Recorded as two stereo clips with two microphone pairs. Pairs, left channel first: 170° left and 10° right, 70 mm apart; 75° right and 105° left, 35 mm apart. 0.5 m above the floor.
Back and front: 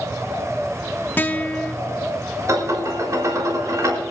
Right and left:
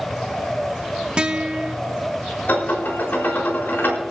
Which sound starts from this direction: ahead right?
Dishes clattering, at 2.5 s.